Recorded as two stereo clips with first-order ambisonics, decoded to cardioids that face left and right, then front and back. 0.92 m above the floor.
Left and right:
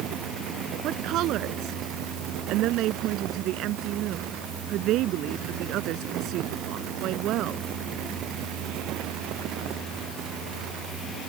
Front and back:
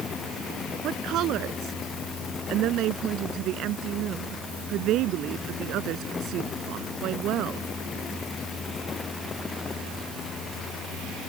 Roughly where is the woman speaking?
Behind right.